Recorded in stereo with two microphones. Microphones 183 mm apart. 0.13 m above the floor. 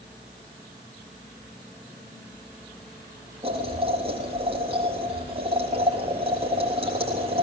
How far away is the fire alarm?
No fire alarm in this recording.